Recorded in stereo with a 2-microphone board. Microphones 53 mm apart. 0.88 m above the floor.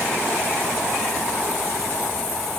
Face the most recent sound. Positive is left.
No sound to turn to.